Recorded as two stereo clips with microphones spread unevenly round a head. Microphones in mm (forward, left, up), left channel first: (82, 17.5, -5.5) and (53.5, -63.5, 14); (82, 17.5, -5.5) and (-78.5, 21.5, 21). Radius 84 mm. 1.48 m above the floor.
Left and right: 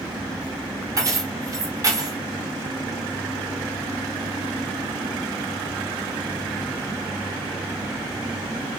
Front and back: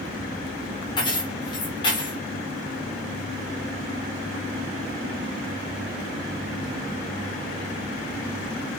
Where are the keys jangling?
70° right, 0.9 m.